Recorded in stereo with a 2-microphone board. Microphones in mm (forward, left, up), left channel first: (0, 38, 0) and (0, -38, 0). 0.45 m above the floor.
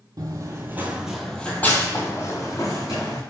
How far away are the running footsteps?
About 0.7 m.